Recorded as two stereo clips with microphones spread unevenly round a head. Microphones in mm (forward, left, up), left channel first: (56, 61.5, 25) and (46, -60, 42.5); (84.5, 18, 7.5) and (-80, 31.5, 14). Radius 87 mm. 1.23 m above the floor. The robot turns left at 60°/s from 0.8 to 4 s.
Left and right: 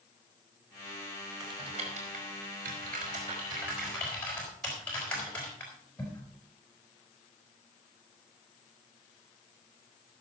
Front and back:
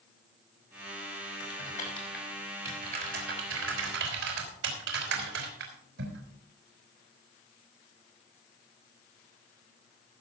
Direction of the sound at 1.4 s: 35° right.